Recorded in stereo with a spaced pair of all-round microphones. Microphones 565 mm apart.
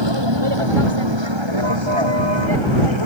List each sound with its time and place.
0.0 s a vehicle: 50° right (ahead or behind)